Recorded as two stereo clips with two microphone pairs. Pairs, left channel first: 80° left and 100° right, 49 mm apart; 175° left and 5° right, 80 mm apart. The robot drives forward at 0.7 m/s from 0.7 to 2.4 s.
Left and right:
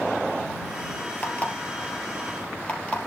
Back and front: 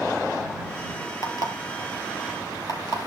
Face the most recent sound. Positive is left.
turn(degrees=145)